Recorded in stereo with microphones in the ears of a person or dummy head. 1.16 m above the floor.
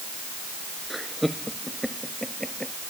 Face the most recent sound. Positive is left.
turn(degrees=0)  # may be behind; listen again after turning